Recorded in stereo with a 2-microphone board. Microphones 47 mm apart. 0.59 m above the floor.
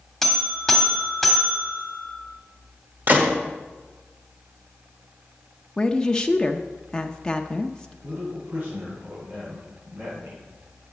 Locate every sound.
0.2 s a buzzer: 5° left (ahead or behind), 1.5 m
3.1 s a gunshot: 45° right (ahead or behind), 2 m
5.8 s a woman speaking: 15° left (ahead or behind), 0.6 m
8.0 s a man speaking: 40° right (ahead or behind), 5 m